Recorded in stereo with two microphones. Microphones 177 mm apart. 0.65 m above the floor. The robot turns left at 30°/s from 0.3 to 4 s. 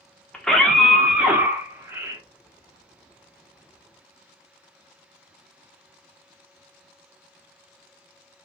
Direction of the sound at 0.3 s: 5° left (ahead or behind).